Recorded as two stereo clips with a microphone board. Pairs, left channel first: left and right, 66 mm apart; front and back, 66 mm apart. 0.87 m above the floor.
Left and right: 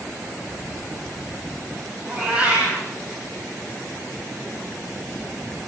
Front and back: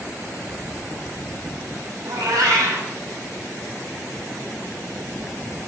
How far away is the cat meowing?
About 5 m.